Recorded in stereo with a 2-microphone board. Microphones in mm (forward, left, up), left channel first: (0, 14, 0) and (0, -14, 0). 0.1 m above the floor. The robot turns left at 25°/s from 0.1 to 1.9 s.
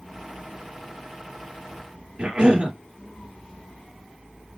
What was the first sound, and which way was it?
A cough, 40° right (ahead or behind).